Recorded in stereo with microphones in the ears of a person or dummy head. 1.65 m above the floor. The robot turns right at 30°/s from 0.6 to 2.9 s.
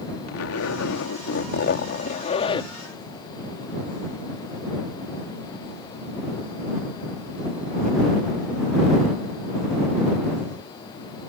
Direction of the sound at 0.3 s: 95° left.